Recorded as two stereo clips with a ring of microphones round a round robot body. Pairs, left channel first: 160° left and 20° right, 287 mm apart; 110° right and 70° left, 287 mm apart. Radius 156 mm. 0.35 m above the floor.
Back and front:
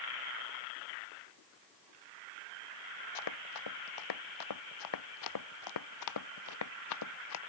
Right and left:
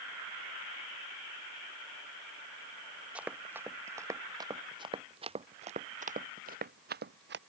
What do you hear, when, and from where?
3.1 s running footsteps: 155° left; by 7.4 s 120° left